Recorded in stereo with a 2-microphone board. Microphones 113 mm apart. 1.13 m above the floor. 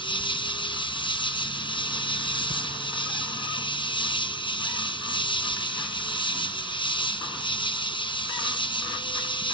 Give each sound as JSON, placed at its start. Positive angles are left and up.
{"t": 0.0, "sound": "an insect", "side_deg": 45, "distance_m": 0.8}